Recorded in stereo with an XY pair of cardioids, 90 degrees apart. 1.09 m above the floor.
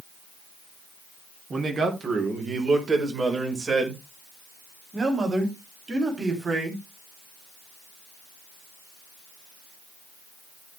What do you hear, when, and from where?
1.5 s a man speaking: 45° right, 3.5 m; by 6.8 s 40° right, 8.5 m